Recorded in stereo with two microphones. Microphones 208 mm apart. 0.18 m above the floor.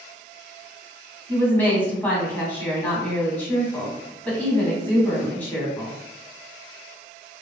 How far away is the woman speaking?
About 1.1 m.